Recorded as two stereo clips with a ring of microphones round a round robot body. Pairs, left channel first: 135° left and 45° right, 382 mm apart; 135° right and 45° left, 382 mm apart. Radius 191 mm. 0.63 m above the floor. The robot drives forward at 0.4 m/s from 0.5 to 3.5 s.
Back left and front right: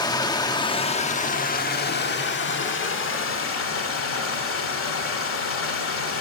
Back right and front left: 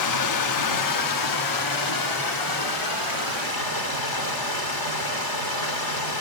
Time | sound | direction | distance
0.0 | running water | 150° right | 1.0 m